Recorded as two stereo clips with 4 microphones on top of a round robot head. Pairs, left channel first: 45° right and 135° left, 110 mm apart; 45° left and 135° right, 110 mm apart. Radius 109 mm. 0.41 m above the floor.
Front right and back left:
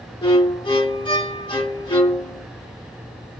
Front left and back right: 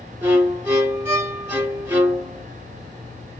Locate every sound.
0.2 s a violin: 70° right, 2.0 m